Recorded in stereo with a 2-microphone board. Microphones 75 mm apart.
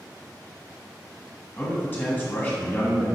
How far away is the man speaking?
About 1.1 m.